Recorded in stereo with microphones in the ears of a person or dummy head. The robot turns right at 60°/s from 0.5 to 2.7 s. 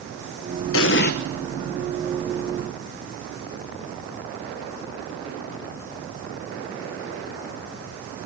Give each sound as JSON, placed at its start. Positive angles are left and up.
{"t": 0.7, "sound": "an explosion", "side_deg": 65, "distance_m": 1.2}